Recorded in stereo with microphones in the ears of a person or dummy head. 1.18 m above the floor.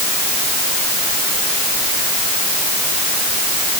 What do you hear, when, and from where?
Only background noise.